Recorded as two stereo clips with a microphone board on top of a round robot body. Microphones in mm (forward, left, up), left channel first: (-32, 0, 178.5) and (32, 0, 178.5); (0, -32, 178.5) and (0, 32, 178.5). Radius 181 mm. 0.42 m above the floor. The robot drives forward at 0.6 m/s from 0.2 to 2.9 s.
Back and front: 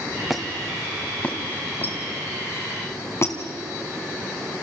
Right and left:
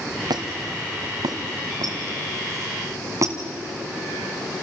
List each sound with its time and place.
0.3 s a squeak: 90° left, 1.7 m; by 3.4 s 130° left, 2.5 m